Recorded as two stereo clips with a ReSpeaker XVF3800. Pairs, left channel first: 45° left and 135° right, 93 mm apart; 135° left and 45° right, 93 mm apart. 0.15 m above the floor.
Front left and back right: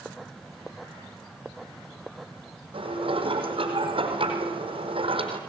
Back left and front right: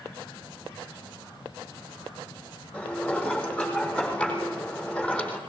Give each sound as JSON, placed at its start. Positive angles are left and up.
{"t": 2.7, "sound": "dishes clattering", "azimuth_deg": -145, "distance_m": 4.5}